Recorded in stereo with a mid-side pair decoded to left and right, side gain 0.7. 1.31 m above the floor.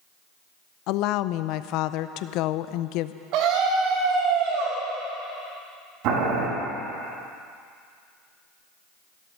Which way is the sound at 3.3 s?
60° right.